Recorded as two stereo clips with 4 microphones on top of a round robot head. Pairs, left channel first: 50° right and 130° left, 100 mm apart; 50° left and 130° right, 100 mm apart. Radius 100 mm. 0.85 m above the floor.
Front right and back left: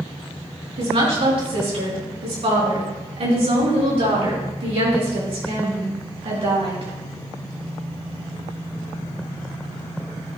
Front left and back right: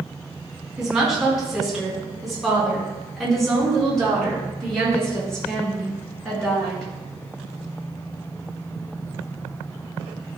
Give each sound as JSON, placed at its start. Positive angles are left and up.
{"t": 0.8, "sound": "a woman speaking", "azimuth_deg": 145, "distance_m": 4.0}